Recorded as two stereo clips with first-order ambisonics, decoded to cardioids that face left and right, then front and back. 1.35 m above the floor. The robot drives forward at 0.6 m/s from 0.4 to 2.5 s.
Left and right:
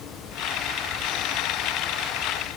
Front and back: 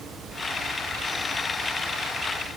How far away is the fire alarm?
No fire alarm in this recording.